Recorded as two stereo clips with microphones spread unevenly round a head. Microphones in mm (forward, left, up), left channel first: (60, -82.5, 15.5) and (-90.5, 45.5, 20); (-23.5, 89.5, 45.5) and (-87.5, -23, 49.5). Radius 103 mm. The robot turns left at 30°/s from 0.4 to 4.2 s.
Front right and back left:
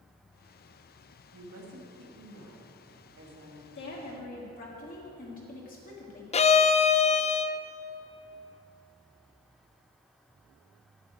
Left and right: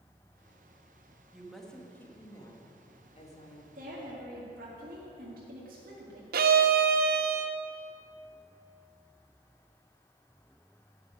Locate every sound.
1.3 s a woman speaking: 155° left, 1.9 m; by 3.6 s 85° left, 1.9 m
3.8 s a woman speaking: 75° right, 1.8 m; by 6.2 s 90° right, 1.8 m
6.3 s a violin: 100° right, 0.5 m